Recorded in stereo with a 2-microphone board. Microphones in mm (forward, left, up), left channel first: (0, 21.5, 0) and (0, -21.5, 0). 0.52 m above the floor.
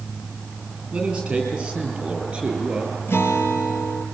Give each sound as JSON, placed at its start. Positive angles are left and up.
{"t": 0.9, "sound": "a man speaking", "side_deg": -15, "distance_m": 9.0}
{"t": 3.1, "sound": "a guitar", "side_deg": 75, "distance_m": 3.5}